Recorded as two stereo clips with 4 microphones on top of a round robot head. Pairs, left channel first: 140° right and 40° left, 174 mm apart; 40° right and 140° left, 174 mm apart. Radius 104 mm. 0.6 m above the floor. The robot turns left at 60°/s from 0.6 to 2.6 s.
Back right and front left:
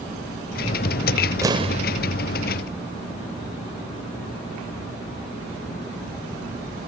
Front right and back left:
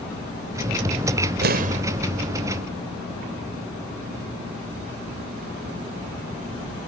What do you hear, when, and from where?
1.4 s an explosion: 110° left; by 1.8 s 90° left